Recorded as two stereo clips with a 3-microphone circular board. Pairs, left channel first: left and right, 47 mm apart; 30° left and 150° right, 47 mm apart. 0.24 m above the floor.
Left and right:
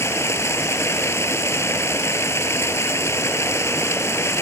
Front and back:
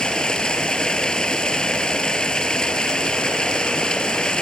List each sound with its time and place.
0.0 s running water: 105° left